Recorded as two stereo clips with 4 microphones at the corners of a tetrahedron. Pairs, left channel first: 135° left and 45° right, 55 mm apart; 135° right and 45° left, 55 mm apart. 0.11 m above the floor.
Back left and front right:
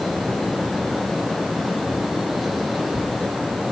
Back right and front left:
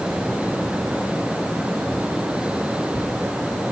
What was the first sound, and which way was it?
Only background noise.